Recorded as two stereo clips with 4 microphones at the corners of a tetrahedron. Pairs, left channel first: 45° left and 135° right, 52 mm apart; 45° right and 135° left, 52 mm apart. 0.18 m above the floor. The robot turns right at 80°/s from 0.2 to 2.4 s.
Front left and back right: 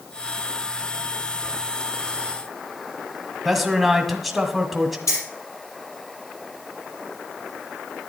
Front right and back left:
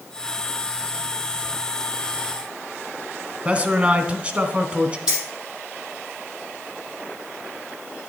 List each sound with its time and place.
3.5 s a man speaking: 140° left, 1.1 m
5.1 s keys jangling: 60° left, 4.5 m